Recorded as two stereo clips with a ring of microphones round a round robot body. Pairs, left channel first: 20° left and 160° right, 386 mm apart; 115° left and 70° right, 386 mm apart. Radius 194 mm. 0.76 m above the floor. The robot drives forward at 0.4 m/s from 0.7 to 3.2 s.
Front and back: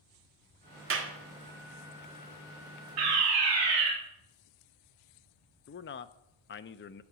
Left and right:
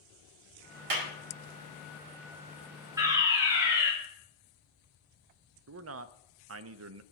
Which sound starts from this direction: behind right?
A fire alarm, at 3.0 s.